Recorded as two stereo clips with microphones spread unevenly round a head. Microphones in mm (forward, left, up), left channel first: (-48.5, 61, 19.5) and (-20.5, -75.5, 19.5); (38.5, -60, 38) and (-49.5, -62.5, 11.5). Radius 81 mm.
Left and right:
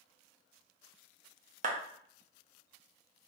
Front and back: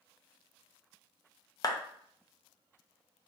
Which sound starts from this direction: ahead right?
A clap, at 1.6 s.